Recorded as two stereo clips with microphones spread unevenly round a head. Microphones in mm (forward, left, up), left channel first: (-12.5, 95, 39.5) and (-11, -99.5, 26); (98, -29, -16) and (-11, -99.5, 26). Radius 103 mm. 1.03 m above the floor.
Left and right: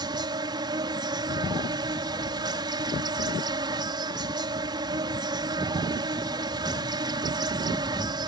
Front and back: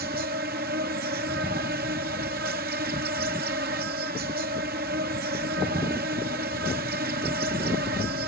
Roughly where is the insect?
Behind.